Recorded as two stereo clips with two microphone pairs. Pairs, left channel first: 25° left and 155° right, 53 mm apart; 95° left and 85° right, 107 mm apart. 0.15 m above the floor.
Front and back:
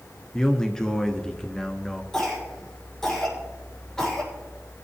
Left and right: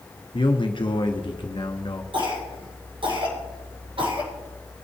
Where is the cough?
50° right, 6 m.